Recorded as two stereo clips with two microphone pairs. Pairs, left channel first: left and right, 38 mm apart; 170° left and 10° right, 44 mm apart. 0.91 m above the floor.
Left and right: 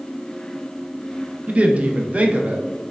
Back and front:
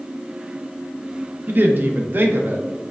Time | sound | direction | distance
1.5 | a woman speaking | 35° right | 0.5 m